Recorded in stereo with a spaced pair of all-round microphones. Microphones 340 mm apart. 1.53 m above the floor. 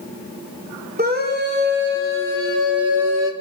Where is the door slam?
I don't hear a door slam.